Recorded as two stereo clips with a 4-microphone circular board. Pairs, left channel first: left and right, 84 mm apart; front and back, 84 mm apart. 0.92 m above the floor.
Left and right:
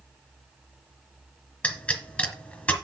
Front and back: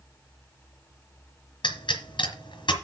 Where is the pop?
10° left, 3 m.